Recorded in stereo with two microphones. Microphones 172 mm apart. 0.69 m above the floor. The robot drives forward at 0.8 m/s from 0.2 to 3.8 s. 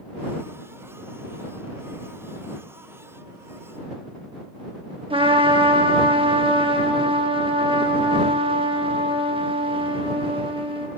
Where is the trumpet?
30° right (ahead or behind), 0.8 m.